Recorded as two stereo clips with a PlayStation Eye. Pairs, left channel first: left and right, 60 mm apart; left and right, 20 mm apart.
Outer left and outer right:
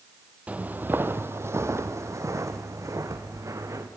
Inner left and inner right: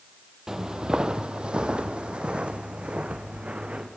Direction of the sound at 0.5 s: 25° right (ahead or behind).